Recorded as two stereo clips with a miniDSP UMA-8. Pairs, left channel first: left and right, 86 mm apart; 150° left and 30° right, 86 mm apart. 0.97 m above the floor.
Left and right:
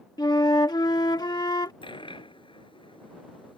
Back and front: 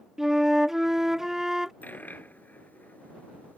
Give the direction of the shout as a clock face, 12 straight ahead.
No shout in this recording.